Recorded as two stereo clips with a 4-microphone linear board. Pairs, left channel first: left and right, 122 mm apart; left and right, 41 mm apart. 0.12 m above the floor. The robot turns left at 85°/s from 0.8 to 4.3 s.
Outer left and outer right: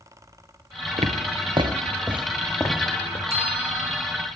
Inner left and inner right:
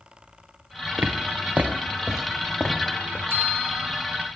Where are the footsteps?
80° right, 1.3 m; by 3.2 s 60° left (ahead or behind), 1.8 m.